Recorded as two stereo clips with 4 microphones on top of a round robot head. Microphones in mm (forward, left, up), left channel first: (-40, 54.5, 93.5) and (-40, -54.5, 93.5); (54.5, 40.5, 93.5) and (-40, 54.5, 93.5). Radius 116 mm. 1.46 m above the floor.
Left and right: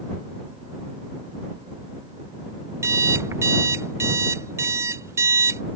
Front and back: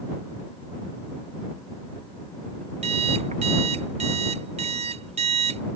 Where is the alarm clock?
150° right.